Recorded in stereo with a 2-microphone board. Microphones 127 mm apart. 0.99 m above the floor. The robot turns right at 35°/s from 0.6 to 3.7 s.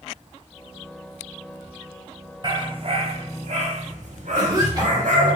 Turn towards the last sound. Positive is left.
turn(degrees=-30)  # may be behind; listen again after turning